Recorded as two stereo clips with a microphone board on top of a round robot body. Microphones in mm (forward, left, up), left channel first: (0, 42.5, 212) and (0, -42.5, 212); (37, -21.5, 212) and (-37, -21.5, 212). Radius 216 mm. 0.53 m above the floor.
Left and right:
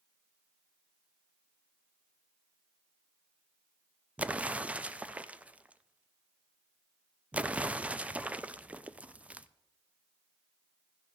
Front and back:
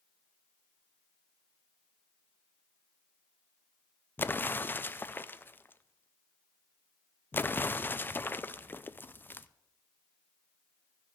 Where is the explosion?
30° right, 0.7 m.